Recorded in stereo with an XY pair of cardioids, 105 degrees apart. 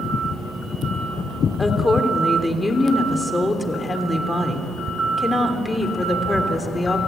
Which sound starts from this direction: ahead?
A woman speaking, at 1.6 s.